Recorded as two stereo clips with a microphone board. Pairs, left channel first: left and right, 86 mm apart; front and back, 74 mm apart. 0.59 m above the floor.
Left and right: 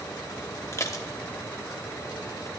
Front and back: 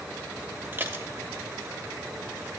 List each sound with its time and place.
0.7 s dishes clattering: 135° left, 0.8 m